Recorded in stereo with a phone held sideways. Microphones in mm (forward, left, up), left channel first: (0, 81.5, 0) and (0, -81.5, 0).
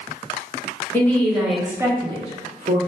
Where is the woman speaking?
10° left (ahead or behind), 1.5 m; by 2.8 s 55° right (ahead or behind), 1.2 m.